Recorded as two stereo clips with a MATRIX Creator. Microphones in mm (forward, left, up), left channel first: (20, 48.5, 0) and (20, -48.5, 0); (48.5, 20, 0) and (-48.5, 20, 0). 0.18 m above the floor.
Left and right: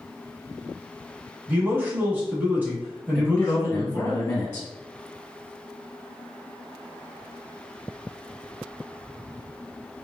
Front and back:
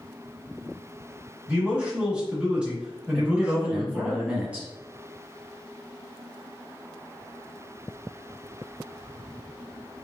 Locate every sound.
1.5 s a man speaking: 115° right, 1.3 m
3.1 s a man speaking: 120° left, 1.1 m